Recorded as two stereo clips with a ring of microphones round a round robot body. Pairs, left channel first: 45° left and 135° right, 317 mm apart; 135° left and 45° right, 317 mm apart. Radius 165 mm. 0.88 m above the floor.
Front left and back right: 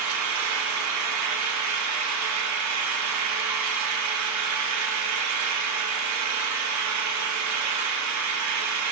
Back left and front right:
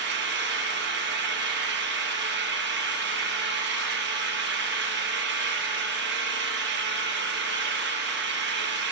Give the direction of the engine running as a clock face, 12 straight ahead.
3 o'clock.